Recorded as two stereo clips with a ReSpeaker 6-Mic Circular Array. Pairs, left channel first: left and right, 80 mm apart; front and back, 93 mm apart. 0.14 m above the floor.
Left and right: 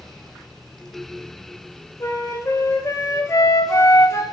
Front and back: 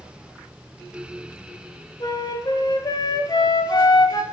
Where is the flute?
40° left, 0.9 m.